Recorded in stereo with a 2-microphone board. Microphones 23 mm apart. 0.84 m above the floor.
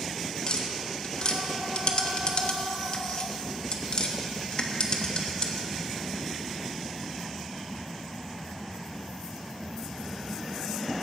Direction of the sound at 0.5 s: 40° left (ahead or behind).